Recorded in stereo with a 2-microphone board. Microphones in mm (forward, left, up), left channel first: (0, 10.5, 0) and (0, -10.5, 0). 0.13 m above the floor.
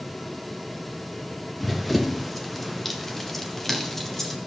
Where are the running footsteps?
Centre (ahead or behind), 1.3 m; by 4.4 s 15° left (ahead or behind), 3 m.